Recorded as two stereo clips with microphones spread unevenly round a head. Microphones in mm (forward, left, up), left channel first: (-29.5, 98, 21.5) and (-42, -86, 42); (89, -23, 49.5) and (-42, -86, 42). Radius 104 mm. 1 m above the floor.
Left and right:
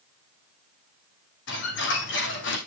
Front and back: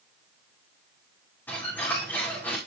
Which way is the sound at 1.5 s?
105° left.